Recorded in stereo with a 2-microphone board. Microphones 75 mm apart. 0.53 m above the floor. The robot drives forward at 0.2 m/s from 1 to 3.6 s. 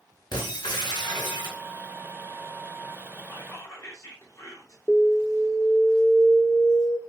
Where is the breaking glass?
80° left, 2 m.